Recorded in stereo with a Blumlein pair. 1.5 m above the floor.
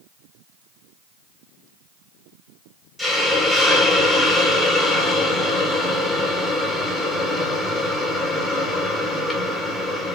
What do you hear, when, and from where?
3.0 s a hiss: straight ahead, 1.5 m